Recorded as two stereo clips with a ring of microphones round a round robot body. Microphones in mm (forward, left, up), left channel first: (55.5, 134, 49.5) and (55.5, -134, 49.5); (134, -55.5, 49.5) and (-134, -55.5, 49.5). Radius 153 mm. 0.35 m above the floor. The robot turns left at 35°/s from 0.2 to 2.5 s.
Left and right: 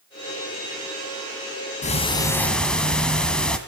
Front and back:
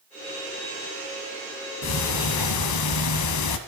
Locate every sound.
1.8 s ticking: 25° left, 2.0 m; by 3.6 s 5° left, 2.0 m